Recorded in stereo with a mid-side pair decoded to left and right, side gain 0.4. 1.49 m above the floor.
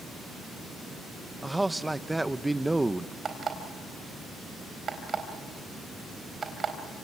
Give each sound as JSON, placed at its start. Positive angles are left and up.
{"t": 1.4, "sound": "a man speaking", "azimuth_deg": -10, "distance_m": 1.1}
{"t": 3.2, "sound": "an alarm clock", "azimuth_deg": -50, "distance_m": 4.0}